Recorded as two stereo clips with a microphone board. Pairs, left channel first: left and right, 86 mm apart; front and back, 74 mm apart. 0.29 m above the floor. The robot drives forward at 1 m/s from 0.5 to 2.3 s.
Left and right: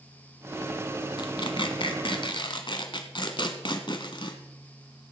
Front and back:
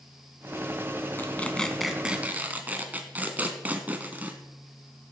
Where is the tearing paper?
60° left, 1.4 m; by 4.4 s 115° left, 1.3 m.